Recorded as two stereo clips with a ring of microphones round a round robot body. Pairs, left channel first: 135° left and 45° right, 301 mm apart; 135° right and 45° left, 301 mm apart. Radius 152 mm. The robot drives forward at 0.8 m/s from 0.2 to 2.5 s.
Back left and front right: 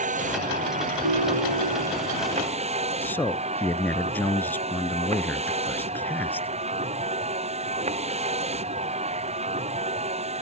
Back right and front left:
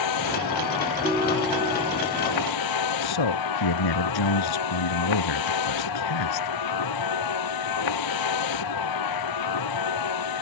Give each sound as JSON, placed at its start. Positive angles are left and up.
{"t": 0.0, "sound": "a vehicle", "azimuth_deg": -110}
{"t": 1.0, "sound": "a ringtone", "azimuth_deg": -40}
{"t": 3.0, "sound": "a man speaking", "azimuth_deg": -140}